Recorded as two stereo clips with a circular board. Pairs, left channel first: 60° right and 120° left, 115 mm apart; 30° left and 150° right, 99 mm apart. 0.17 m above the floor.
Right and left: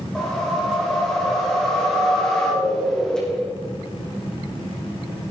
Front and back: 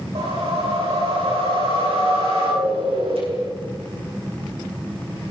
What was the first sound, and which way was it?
A whoosh, 145° right.